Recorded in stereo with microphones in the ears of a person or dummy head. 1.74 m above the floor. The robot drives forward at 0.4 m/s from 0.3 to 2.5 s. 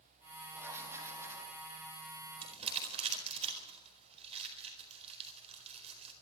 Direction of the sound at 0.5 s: 15° right (ahead or behind).